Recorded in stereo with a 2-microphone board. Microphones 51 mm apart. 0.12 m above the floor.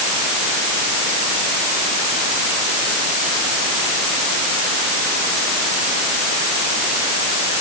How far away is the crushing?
I don't hear crushing.